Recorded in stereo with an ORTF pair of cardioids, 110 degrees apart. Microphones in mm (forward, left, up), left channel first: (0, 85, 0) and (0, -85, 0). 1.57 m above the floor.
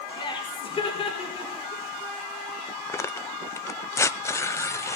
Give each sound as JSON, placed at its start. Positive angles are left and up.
{"t": 0.2, "sound": "laughter", "azimuth_deg": 30, "distance_m": 5.5}
{"t": 2.9, "sound": "tearing paper", "azimuth_deg": 15, "distance_m": 0.7}